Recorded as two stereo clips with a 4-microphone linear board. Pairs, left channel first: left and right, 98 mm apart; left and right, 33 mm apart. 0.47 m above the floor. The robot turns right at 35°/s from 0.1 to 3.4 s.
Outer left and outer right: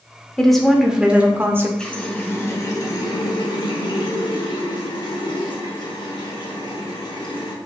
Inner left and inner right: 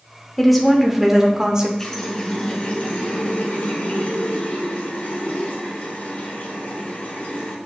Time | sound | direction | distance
0.4 | a woman speaking | 170° left | 0.9 m
1.8 | a running tap | 10° left | 1.0 m